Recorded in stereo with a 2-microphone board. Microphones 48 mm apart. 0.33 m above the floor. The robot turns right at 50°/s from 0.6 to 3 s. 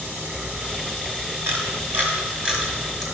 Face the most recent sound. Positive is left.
turn(degrees=5)  # may be behind; listen again after turning